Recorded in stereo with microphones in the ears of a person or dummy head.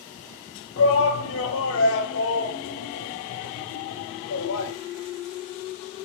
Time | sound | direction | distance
0.8 | a shout | 65° left (ahead or behind) | 0.7 m